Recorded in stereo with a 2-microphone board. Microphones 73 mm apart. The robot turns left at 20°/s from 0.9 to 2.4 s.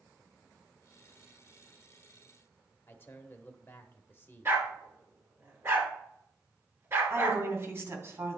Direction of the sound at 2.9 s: 30° left (ahead or behind).